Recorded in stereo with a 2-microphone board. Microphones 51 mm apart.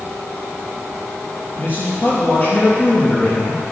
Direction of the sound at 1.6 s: 40° left (ahead or behind).